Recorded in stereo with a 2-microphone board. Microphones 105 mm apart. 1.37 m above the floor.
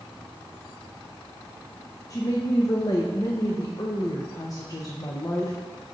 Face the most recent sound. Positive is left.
turn(degrees=35)  # may be behind; listen again after turning